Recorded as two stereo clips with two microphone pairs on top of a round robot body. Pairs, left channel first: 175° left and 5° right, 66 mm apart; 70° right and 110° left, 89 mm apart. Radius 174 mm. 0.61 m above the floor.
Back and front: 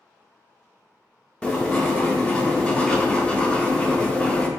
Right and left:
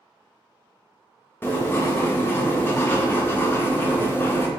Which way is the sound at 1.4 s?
130° right.